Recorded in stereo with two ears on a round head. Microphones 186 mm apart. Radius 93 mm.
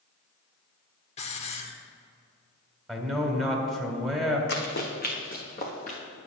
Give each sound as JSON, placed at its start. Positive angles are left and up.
{"t": 1.2, "sound": "a hiss", "side_deg": 30, "distance_m": 0.9}
{"t": 2.9, "sound": "a man speaking", "side_deg": 0, "distance_m": 1.9}
{"t": 4.5, "sound": "running footsteps", "side_deg": 55, "distance_m": 1.7}